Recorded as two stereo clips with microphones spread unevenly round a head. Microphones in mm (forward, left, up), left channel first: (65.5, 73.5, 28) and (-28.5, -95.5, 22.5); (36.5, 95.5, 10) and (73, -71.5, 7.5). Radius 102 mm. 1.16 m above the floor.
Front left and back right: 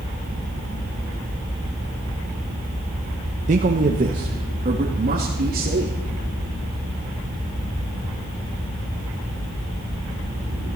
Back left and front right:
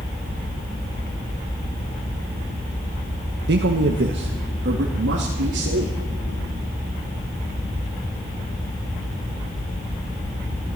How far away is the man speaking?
About 1.1 m.